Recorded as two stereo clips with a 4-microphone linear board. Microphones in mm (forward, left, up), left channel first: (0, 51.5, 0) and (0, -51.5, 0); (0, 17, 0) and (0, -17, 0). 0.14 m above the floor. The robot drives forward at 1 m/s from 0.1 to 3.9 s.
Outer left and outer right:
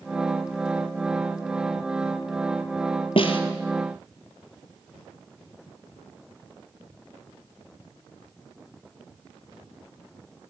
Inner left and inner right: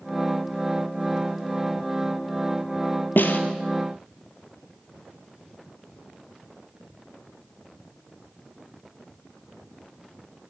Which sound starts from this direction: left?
A snare drum, at 3.2 s.